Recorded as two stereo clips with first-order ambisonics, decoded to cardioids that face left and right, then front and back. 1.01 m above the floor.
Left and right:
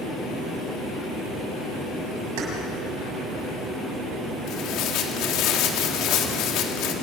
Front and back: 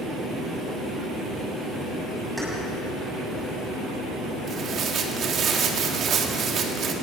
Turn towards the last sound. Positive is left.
turn(degrees=125)